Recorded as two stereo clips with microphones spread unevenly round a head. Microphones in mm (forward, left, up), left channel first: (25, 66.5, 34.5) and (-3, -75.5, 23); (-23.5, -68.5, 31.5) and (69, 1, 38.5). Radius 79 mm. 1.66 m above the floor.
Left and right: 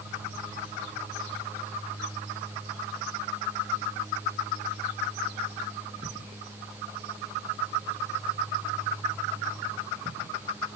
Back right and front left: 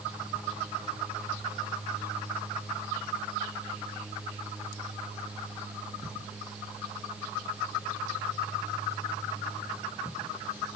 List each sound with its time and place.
Only background noise.